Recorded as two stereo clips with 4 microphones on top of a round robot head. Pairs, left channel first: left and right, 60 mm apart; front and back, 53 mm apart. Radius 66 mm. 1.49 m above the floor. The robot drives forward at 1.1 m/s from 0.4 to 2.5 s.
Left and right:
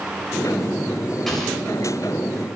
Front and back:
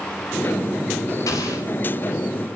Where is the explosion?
5° left, 3.5 m.